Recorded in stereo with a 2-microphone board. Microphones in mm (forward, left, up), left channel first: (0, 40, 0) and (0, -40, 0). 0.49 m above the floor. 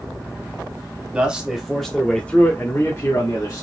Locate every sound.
1.1 s a man speaking: 15° right (ahead or behind), 1.5 m; by 3.6 s 45° left (ahead or behind), 1.8 m